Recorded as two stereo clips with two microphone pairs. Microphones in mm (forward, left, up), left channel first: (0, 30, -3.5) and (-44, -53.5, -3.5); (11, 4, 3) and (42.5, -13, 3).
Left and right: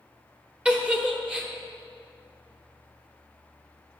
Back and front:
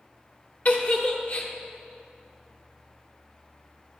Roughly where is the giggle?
Behind.